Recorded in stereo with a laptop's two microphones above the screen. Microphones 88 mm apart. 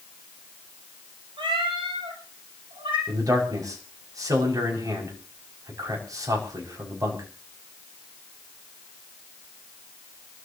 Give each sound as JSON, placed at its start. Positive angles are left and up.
{"t": 1.4, "sound": "a cat meowing", "side_deg": -85, "distance_m": 7.0}
{"t": 3.1, "sound": "a man speaking", "side_deg": -40, "distance_m": 5.5}